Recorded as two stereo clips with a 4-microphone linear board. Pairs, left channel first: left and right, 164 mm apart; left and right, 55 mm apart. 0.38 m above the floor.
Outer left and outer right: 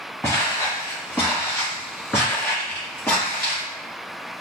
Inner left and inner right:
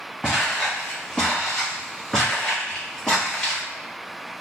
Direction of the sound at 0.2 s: 15° left (ahead or behind).